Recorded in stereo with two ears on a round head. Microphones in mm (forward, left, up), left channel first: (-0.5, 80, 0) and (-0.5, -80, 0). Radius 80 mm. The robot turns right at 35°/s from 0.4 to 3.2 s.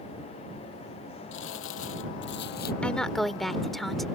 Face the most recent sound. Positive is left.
turn(degrees=0)  # may be behind; listen again after turning